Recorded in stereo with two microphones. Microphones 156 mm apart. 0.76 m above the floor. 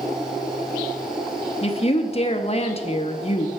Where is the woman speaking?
40° left (ahead or behind), 0.7 m.